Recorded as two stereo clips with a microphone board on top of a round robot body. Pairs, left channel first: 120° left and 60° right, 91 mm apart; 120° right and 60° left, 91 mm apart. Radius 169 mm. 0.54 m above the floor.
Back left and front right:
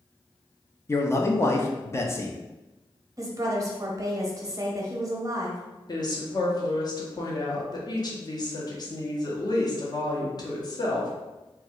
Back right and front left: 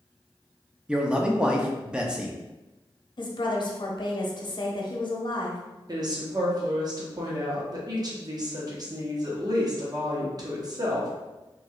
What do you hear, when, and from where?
0.9 s a man speaking: 130° left, 0.7 m
3.2 s a woman speaking: 105° right, 0.9 m
5.9 s a woman speaking: 90° left, 1.0 m